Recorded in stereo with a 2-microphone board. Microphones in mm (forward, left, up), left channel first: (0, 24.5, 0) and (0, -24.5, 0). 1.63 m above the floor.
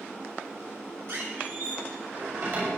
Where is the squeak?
60° right (ahead or behind), 6.5 m.